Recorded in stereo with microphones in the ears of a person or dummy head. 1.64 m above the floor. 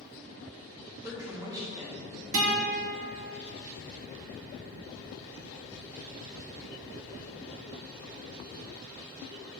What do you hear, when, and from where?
1.0 s a woman speaking: 15° right (ahead or behind), 1.4 m
2.3 s a guitar: 75° right (ahead or behind), 1.2 m